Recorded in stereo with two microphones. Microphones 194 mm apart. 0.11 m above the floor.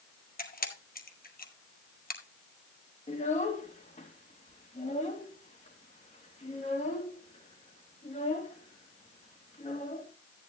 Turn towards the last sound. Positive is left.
turn(degrees=40)  # may be behind; listen again after turning